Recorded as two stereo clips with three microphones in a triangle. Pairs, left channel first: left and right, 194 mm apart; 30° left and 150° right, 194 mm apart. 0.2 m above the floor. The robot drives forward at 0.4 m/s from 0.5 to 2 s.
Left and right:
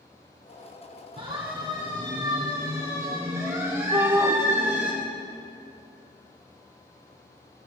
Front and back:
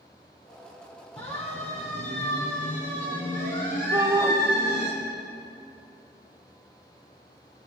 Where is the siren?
30° right, 5 m; by 4.9 s 5° right, 6.5 m.